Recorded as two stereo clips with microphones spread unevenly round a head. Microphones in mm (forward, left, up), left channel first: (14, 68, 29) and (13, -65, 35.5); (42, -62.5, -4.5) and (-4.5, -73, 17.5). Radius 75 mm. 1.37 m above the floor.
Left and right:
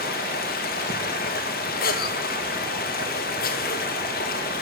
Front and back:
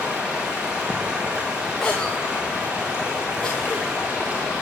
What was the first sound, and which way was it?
Running water, 110° left.